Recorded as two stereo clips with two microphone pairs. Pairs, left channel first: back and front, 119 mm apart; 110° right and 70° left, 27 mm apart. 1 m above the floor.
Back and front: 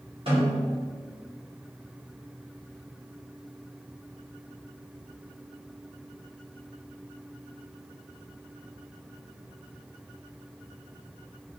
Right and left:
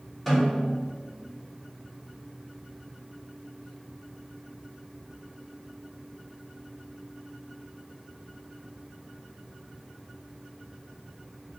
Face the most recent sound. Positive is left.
turn(degrees=-30)